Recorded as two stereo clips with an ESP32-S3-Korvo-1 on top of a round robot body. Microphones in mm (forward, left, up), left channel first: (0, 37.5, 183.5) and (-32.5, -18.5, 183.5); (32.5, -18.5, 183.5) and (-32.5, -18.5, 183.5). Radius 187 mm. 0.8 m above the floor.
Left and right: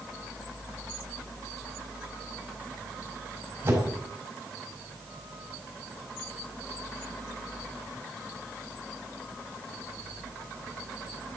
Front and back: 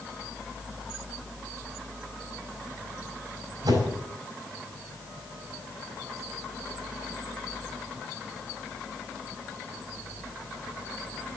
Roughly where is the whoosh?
Behind.